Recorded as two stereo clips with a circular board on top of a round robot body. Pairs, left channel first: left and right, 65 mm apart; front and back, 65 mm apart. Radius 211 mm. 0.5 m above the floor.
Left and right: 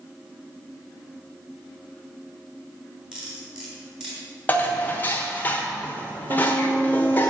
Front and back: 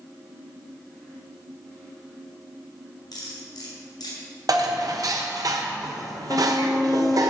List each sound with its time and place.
3.1 s cutlery clinking: 10° right, 4 m
4.5 s dishes clattering: 155° left, 1.3 m
6.3 s a violin: 65° right, 2.5 m